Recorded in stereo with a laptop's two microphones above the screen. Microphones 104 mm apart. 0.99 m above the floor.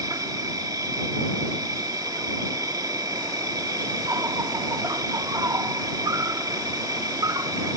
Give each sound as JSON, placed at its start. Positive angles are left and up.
{"t": 0.0, "sound": "an insect", "side_deg": -35}